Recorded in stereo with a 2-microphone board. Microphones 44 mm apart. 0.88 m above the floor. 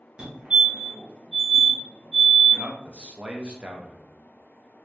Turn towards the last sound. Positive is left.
turn(degrees=-30)  # may be behind; listen again after turning